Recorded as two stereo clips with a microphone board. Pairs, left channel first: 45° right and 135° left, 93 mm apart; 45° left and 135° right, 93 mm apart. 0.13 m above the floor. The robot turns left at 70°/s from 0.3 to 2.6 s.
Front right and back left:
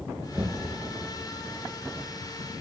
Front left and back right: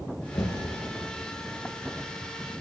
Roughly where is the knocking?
Left.